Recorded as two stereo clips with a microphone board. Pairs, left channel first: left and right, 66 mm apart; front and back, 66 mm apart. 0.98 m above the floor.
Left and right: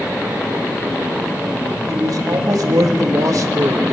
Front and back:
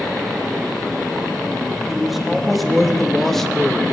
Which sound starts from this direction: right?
A man speaking, at 1.9 s.